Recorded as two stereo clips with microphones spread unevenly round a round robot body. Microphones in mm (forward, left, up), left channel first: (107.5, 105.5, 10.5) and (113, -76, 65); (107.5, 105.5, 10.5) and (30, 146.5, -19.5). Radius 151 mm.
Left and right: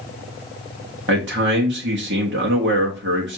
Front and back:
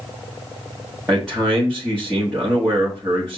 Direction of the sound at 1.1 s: 125° right.